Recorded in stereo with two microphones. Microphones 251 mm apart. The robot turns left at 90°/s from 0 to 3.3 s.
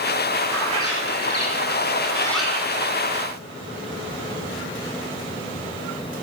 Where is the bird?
170° left, 2.5 m; by 2.8 s 35° right, 2.5 m.